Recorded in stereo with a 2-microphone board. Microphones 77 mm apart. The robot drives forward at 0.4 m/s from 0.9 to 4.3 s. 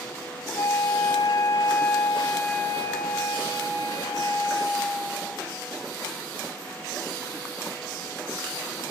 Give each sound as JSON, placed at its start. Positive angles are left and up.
{"t": 0.6, "sound": "a flute", "side_deg": 35, "distance_m": 0.5}